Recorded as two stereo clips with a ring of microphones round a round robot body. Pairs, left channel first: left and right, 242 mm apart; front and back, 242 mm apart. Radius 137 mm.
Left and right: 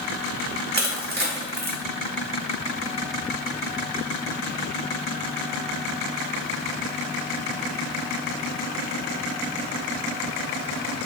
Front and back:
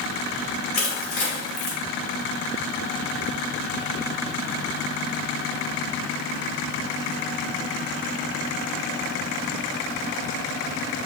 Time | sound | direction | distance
0.7 | crushing | 55° right | 0.6 m